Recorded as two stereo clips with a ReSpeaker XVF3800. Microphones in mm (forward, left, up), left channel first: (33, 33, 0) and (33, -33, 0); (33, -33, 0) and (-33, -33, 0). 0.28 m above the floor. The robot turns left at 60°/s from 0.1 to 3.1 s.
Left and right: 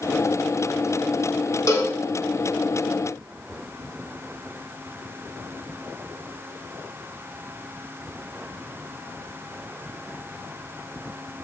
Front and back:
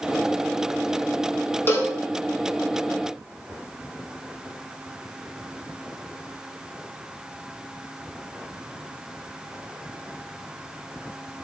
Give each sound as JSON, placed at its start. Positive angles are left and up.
{"t": 1.7, "sound": "a cowbell", "azimuth_deg": 50, "distance_m": 0.5}